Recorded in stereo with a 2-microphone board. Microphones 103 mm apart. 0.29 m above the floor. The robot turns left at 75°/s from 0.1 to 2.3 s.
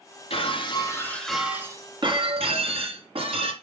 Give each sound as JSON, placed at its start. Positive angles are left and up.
{"t": 0.3, "sound": "breaking glass", "azimuth_deg": 75, "distance_m": 2.0}